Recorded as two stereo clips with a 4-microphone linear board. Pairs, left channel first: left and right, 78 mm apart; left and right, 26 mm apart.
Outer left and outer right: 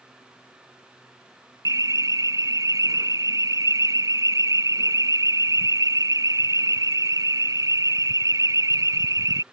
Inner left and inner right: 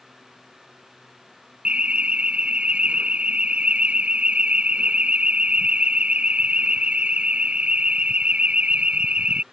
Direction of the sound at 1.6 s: 50° right (ahead or behind).